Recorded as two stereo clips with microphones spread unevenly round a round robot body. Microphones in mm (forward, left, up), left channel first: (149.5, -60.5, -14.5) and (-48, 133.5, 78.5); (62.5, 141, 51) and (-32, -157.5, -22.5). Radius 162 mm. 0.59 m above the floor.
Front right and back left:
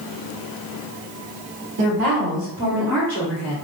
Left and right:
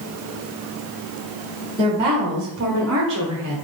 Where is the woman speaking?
Straight behind, 2.0 m; by 3.5 s 75° right, 1.8 m.